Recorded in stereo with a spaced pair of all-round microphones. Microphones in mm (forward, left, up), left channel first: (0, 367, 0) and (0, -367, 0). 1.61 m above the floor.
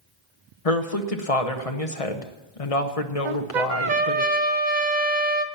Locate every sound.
0.7 s a woman speaking: 50° left (ahead or behind), 1.2 m
3.2 s a trumpet: 80° right, 0.9 m